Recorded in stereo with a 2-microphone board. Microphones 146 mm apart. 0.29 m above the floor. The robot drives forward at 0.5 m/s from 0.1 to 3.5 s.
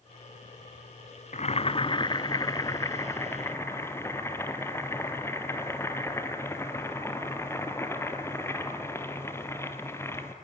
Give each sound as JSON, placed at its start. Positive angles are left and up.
{"t": 1.3, "sound": "boiling", "side_deg": 50, "distance_m": 0.5}